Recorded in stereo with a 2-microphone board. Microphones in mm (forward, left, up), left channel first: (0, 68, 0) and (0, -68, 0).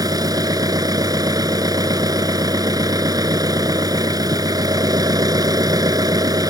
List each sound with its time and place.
0.0 s an engine running: 30° right (ahead or behind)